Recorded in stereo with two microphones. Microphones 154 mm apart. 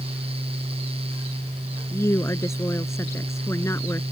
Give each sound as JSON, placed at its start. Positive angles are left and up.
{"t": 1.9, "sound": "a woman speaking", "side_deg": 15}